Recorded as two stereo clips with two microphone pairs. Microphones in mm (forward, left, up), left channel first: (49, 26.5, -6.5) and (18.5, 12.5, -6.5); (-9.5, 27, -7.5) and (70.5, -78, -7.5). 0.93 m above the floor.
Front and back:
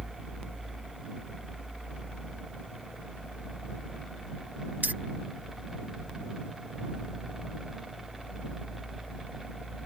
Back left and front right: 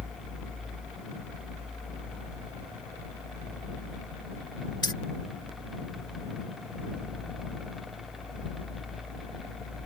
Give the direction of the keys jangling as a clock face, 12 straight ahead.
6 o'clock.